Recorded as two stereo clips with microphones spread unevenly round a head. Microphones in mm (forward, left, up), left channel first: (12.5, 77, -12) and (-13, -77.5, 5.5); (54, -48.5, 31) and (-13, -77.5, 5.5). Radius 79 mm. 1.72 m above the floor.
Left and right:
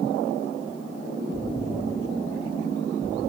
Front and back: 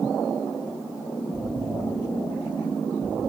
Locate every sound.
1.3 s an explosion: 30° left, 2 m